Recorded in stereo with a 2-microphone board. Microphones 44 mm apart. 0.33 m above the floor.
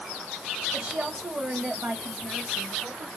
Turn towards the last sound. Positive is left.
turn(degrees=-30)  # may be behind; listen again after turning